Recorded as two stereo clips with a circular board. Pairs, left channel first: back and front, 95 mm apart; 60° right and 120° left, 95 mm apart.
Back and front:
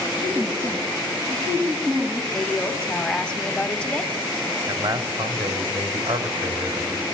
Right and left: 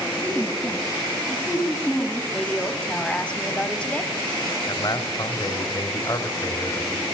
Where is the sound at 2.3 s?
115° right, 1.1 m.